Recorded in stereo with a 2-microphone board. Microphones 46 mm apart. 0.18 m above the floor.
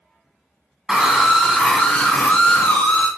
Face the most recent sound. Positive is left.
turn(degrees=40)  # may be behind; listen again after turning